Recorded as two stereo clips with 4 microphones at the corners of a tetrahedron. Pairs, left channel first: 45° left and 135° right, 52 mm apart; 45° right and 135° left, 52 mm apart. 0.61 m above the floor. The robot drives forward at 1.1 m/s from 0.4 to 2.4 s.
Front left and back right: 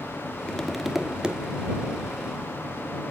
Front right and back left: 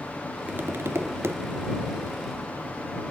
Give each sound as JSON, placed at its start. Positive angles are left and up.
{"t": 0.5, "sound": "tapping", "azimuth_deg": 110, "distance_m": 0.8}